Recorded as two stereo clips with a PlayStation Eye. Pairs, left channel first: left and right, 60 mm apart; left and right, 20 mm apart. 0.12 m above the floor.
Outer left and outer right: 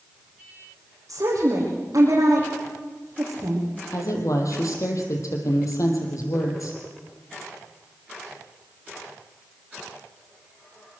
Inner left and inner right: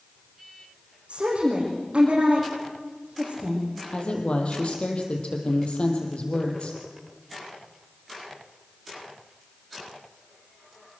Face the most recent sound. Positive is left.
turn(degrees=65)  # may be behind; listen again after turning